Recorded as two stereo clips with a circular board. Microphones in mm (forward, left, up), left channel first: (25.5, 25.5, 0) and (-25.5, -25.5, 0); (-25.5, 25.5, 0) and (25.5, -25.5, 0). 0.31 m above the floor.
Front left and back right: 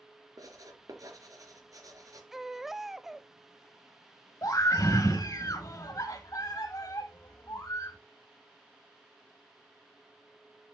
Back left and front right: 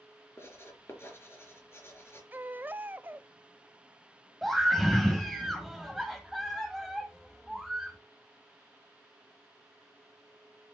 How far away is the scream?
About 1.7 m.